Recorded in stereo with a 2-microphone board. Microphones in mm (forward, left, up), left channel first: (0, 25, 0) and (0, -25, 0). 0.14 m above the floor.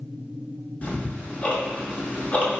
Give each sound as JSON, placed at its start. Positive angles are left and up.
{"t": 0.8, "sound": "ticking", "side_deg": 35, "distance_m": 1.0}